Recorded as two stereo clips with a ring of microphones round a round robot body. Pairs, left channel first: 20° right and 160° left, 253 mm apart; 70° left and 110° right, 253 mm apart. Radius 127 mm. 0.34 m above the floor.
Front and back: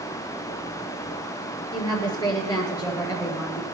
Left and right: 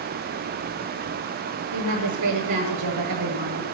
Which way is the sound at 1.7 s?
100° right.